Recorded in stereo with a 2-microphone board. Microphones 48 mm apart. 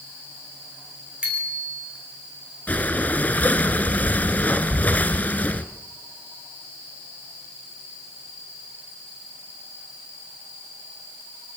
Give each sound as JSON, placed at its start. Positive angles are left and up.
{"t": 1.2, "sound": "a bicycle bell", "side_deg": -25, "distance_m": 6.5}
{"t": 2.7, "sound": "breathing", "side_deg": 35, "distance_m": 1.1}